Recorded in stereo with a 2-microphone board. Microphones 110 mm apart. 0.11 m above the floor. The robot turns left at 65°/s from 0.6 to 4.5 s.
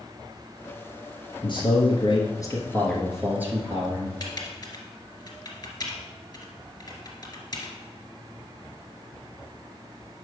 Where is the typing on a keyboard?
40° left (ahead or behind), 1.9 m; by 7.7 s 35° left (ahead or behind), 1.9 m.